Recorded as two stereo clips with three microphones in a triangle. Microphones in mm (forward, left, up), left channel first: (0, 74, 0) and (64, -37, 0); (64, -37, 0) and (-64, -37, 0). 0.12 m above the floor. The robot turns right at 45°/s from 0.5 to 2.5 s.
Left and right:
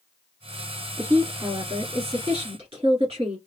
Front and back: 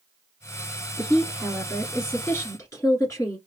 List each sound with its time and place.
1.0 s a woman speaking: 125° right, 1.7 m; by 3.4 s 55° right, 1.7 m